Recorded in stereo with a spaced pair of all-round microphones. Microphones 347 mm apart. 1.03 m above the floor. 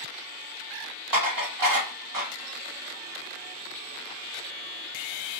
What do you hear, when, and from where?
1.1 s dishes clattering: 65° right (ahead or behind), 1.2 m